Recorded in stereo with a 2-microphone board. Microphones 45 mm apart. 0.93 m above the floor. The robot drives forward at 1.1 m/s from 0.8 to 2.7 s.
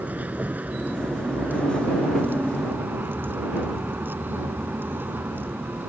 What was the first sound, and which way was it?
A vehicle, 40° right (ahead or behind).